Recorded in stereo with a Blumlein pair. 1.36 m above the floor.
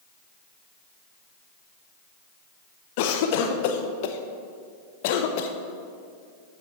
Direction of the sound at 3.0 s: 50° left.